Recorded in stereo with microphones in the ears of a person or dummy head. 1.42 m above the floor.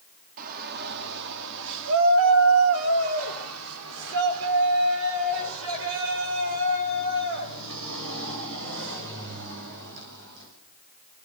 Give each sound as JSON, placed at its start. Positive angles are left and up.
{"t": 0.4, "sound": "a shout", "side_deg": -50, "distance_m": 3.0}